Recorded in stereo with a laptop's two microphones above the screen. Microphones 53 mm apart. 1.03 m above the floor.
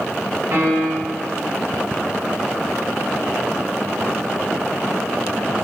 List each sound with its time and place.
0.5 s a piano: 55° right (ahead or behind), 1.1 m